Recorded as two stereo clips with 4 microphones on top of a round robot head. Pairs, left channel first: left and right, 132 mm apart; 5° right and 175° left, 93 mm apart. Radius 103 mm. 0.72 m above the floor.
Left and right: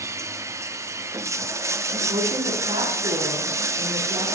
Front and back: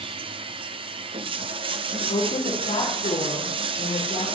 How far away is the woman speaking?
About 6.5 m.